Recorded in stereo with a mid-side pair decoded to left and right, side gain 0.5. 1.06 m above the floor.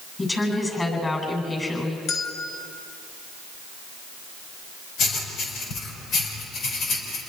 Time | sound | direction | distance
0.2 | a woman speaking | 25° left | 8.5 m
2.1 | a bell | 65° left | 3.5 m
5.0 | writing | 70° left | 4.5 m